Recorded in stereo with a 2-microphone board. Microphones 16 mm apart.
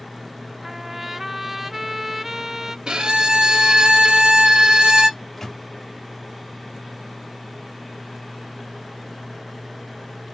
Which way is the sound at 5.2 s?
25° left (ahead or behind).